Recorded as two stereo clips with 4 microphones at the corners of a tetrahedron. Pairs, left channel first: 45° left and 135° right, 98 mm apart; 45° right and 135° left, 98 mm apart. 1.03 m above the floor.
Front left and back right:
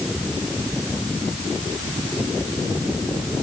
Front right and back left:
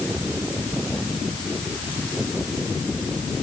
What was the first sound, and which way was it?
Only background noise.